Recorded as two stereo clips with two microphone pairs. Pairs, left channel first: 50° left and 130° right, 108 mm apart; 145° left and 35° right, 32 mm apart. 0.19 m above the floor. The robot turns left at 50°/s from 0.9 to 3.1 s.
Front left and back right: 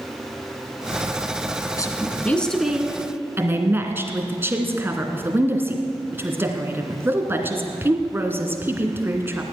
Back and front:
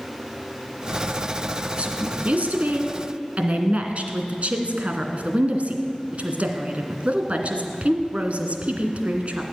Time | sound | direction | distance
1.8 | a woman speaking | 5° left | 2 m